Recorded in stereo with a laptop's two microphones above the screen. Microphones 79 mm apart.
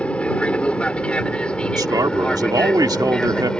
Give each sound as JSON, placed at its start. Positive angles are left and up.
{"t": 0.0, "sound": "an aircraft", "side_deg": 15}
{"t": 1.8, "sound": "a man speaking", "side_deg": -55}